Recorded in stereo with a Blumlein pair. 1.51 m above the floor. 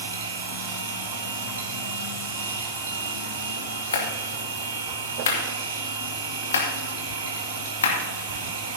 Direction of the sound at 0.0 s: 65° right.